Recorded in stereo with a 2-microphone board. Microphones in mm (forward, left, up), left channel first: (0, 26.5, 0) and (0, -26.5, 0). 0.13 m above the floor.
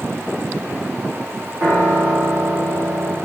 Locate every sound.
1.6 s a piano: 35° right (ahead or behind), 3.5 m